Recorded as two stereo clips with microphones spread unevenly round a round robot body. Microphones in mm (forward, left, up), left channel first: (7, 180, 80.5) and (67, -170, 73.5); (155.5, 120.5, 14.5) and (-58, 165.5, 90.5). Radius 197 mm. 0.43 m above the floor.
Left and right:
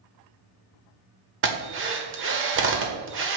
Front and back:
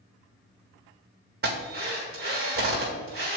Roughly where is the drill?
Behind right.